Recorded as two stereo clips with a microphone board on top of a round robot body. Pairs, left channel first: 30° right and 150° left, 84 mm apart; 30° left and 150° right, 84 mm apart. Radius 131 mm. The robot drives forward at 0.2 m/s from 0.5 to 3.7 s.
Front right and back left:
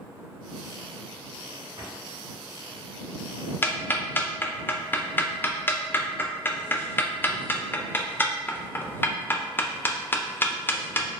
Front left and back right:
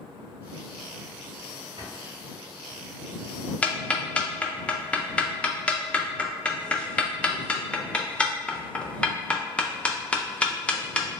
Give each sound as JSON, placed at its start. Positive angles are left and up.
{"t": 1.8, "sound": "a drawer", "azimuth_deg": -175, "distance_m": 1.8}
{"t": 3.6, "sound": "ticking", "azimuth_deg": -20, "distance_m": 0.6}